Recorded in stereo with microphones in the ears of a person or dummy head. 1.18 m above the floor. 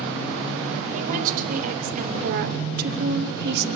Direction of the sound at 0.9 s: 45° right (ahead or behind).